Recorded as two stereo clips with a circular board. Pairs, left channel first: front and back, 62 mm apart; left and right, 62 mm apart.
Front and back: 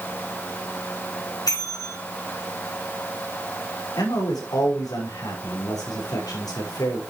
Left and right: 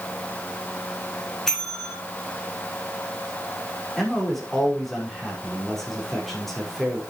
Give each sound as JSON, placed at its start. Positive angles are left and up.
{"t": 1.5, "sound": "a bell", "azimuth_deg": 5, "distance_m": 6.0}
{"t": 4.0, "sound": "a man speaking", "azimuth_deg": 5, "distance_m": 6.0}